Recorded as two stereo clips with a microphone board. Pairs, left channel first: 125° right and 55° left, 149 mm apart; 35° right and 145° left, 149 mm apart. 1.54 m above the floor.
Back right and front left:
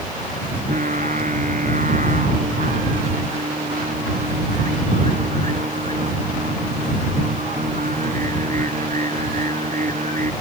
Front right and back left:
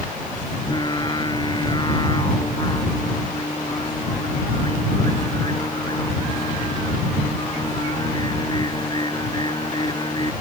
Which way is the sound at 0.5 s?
25° left.